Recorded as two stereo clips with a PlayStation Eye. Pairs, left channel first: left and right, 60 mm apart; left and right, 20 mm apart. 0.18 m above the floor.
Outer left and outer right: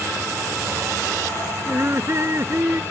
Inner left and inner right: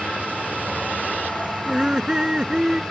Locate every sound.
1.7 s laughter: 45° right (ahead or behind)